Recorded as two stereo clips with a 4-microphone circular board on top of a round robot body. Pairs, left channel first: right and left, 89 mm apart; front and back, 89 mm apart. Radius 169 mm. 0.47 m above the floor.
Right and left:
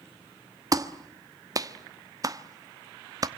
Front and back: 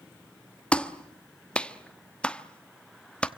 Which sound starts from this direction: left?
A clap, at 0.7 s.